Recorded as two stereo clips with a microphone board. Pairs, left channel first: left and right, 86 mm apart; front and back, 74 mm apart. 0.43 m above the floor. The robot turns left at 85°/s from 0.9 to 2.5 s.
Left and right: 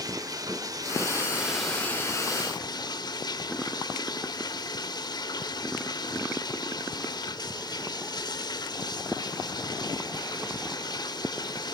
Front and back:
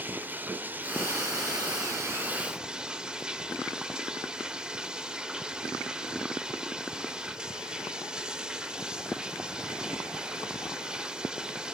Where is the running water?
120° right, 0.7 m; by 11.7 s 105° left, 0.7 m.